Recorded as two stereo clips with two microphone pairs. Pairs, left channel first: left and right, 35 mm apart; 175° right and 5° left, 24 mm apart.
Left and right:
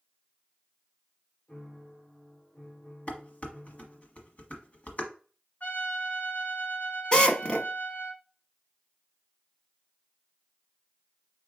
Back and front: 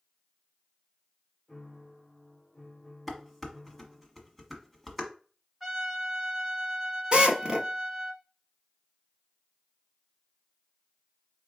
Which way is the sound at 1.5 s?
115° left.